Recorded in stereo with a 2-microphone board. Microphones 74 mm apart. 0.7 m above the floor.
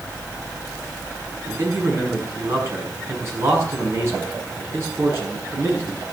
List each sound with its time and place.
1.5 s a man speaking: 35° right (ahead or behind), 5.5 m